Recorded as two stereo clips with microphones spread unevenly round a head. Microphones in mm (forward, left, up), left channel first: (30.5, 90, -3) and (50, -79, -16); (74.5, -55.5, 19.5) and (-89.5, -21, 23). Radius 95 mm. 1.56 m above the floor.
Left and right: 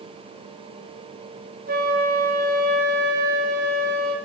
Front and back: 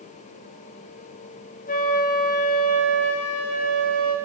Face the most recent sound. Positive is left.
turn(degrees=-50)